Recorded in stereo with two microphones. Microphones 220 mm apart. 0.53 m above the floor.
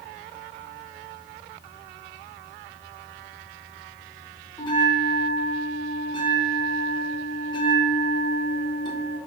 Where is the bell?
20° left (ahead or behind), 1.0 m.